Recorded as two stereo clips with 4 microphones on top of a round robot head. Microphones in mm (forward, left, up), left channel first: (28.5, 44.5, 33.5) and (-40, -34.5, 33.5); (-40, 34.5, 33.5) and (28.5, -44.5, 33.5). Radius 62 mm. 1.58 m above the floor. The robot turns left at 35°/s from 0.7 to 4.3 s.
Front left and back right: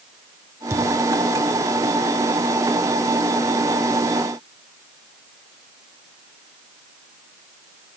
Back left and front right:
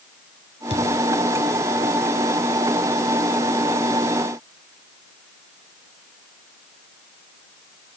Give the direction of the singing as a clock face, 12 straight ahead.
No singing in this recording.